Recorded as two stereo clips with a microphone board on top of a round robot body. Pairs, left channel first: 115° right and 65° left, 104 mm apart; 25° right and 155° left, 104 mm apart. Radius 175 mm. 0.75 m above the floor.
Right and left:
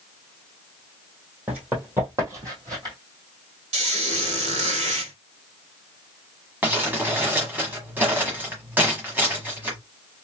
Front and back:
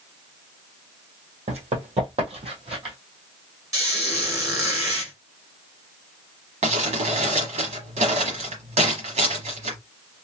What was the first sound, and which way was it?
Running footsteps, 145° left.